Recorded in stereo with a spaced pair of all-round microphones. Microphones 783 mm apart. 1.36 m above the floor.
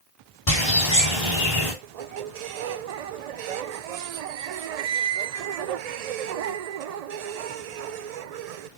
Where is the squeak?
60° right (ahead or behind), 0.5 m.